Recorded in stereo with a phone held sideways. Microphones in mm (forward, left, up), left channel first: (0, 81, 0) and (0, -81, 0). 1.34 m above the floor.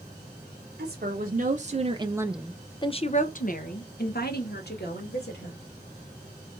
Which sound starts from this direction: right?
A woman speaking, at 0.8 s.